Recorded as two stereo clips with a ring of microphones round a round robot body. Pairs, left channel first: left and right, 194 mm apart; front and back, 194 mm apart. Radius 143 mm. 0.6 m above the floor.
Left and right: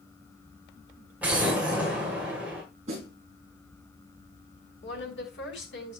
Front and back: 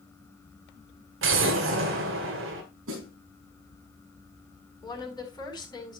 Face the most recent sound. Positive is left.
turn(degrees=70)